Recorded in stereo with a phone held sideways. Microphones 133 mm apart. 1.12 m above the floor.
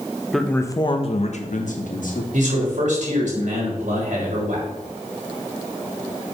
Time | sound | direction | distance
0.3 | a man speaking | centre (ahead or behind) | 1.0 m
2.3 | a man speaking | 75° right (ahead or behind) | 4 m